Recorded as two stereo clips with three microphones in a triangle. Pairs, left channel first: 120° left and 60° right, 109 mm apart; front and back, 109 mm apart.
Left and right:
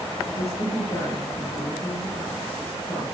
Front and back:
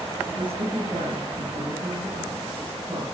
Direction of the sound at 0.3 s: 140° left.